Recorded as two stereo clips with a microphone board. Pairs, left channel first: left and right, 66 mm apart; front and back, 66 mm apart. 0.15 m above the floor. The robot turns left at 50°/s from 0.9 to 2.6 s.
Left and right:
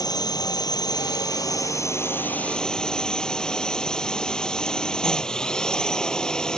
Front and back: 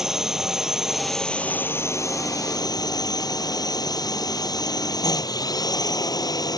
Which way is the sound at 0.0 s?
95° left.